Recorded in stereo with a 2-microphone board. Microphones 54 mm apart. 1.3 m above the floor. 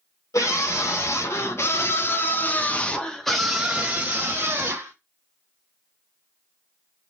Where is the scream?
70° left (ahead or behind), 1.8 m; by 4.9 s 45° right (ahead or behind), 1.2 m.